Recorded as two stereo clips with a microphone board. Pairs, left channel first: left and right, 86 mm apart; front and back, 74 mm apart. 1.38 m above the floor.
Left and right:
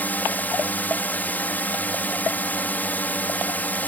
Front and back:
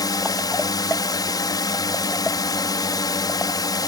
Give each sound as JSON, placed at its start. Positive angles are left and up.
{"t": 0.0, "sound": "a drone", "azimuth_deg": 20}